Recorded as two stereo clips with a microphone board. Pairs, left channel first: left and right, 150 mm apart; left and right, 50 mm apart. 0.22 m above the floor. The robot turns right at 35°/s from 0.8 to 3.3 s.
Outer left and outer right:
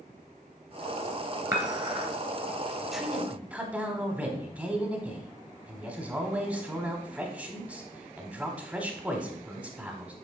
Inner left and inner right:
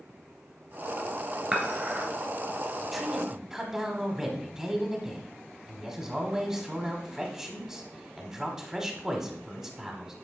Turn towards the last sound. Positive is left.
turn(degrees=-10)  # may be behind; listen again after turning